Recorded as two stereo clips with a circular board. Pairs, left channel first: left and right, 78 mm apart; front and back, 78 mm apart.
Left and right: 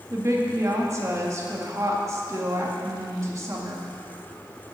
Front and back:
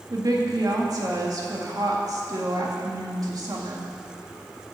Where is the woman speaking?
140° right, 1.9 m.